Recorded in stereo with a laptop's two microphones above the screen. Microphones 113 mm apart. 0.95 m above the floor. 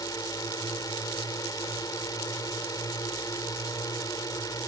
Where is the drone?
35° left (ahead or behind).